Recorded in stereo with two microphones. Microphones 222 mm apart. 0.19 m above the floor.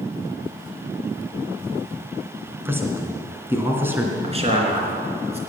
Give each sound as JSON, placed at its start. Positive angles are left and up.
{"t": 2.6, "sound": "a man speaking", "side_deg": -10, "distance_m": 2.0}
{"t": 4.2, "sound": "a man speaking", "side_deg": -30, "distance_m": 3.0}